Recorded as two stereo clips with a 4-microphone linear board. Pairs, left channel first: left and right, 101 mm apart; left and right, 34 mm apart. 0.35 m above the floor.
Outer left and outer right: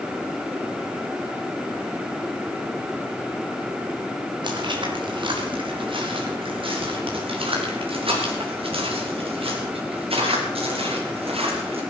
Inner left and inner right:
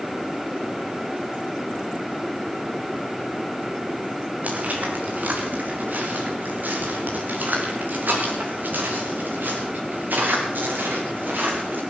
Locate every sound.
4.4 s footsteps: 55° right (ahead or behind), 4 m; by 11.8 s 85° right, 7 m